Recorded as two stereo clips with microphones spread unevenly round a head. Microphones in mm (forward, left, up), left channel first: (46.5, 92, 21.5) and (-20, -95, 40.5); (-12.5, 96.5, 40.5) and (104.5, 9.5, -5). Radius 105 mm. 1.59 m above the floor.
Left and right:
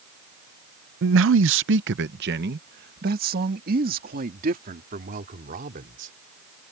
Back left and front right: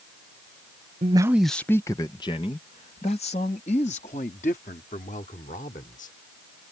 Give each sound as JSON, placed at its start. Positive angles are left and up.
{"t": 1.0, "sound": "a man speaking", "azimuth_deg": -105}